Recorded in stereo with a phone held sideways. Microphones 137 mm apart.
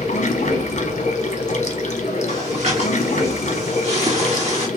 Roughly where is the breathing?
Right.